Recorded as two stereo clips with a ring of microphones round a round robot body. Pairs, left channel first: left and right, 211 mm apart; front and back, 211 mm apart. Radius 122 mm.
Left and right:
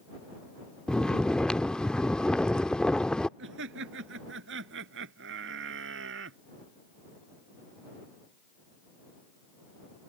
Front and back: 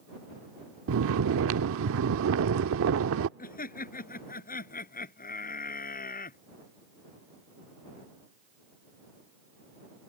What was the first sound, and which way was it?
Snoring, 175° left.